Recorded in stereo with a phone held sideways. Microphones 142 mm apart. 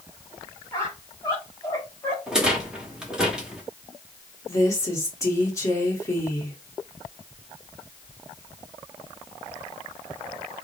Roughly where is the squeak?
Left.